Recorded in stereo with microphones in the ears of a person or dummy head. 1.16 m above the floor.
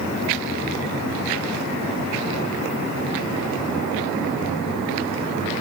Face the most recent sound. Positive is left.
No sound to turn to.